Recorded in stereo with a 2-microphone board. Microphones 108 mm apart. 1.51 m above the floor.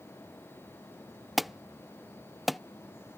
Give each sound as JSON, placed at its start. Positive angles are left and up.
{"t": 1.4, "sound": "an alarm", "side_deg": 0}